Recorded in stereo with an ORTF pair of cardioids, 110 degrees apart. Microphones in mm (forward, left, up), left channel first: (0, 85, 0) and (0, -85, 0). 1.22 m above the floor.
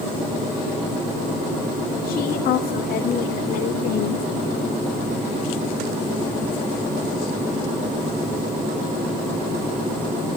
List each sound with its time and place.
2.0 s a woman speaking: 65° left, 2.5 m; by 4.3 s 70° left, 4 m